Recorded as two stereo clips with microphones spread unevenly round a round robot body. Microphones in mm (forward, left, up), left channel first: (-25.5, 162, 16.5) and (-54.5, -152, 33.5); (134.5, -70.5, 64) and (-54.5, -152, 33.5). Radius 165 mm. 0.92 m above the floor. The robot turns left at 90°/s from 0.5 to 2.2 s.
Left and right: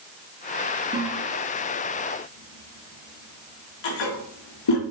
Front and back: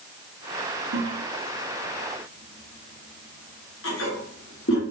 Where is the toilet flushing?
170° right, 1.5 m; by 4.8 s 75° left, 1.5 m.